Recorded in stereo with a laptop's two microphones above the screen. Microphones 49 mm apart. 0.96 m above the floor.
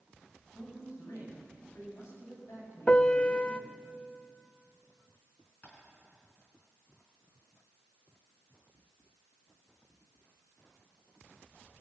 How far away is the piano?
About 0.5 m.